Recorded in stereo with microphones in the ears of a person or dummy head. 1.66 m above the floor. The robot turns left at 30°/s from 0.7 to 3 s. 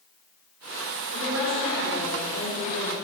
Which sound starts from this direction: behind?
A woman speaking, at 1.1 s.